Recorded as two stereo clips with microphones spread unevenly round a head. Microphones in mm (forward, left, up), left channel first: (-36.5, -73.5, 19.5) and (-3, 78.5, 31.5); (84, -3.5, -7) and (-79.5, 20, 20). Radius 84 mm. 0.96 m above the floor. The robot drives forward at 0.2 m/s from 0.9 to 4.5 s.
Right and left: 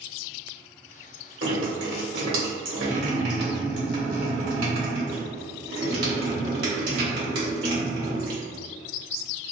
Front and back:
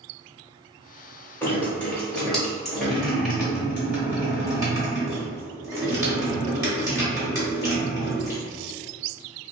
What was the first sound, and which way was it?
Dripping, 75° left.